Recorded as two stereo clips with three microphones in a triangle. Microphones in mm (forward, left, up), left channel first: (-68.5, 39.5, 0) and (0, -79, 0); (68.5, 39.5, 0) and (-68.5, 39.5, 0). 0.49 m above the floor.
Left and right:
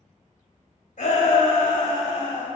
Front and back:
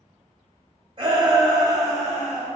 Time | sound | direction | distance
1.0 | a shout | 130° left | 2.5 m